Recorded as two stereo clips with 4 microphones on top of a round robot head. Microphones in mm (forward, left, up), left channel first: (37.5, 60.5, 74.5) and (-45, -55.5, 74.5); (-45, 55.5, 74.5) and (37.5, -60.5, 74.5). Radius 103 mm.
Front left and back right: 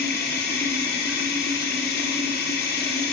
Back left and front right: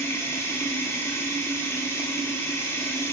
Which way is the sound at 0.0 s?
50° left.